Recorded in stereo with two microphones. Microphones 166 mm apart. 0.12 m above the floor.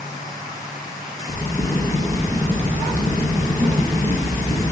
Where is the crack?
10° left (ahead or behind), 1.5 m.